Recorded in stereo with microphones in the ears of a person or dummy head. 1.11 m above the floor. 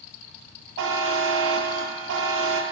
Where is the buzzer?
70° right (ahead or behind), 0.6 m.